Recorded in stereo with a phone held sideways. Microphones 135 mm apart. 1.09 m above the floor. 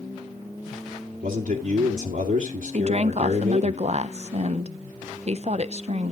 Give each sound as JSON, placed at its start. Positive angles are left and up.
{"t": 1.2, "sound": "a man speaking", "side_deg": -70, "distance_m": 2.0}
{"t": 2.7, "sound": "a woman speaking", "side_deg": -50, "distance_m": 0.6}